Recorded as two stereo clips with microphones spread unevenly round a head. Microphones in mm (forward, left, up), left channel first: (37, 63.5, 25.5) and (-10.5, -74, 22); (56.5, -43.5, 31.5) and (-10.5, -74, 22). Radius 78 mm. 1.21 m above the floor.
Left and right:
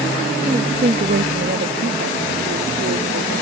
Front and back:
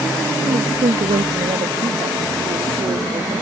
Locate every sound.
0.4 s a woman speaking: 175° right; by 3.4 s 120° right